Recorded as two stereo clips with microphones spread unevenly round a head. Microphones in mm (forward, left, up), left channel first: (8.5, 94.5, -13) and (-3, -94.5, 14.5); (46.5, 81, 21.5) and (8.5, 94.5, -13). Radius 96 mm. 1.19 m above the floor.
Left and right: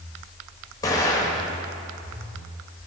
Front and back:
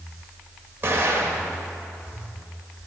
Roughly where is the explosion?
Behind.